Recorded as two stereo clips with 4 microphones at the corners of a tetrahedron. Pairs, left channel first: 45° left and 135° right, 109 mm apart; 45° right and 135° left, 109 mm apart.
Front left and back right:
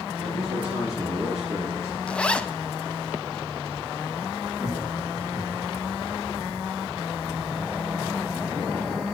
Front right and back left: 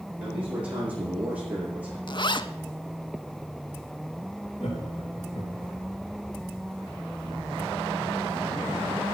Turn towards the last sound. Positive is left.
turn(degrees=-70)